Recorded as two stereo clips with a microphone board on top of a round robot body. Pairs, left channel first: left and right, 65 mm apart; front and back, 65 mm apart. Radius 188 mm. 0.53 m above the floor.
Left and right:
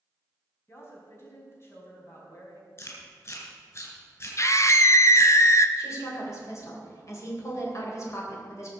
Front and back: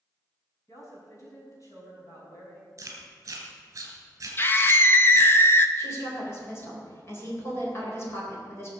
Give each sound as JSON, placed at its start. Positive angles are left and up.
{"t": 0.7, "sound": "a woman speaking", "azimuth_deg": 40, "distance_m": 5.0}
{"t": 2.8, "sound": "chewing", "azimuth_deg": 135, "distance_m": 2.5}
{"t": 4.4, "sound": "a scream", "azimuth_deg": 50, "distance_m": 1.2}
{"t": 5.8, "sound": "a woman speaking", "azimuth_deg": 50, "distance_m": 3.5}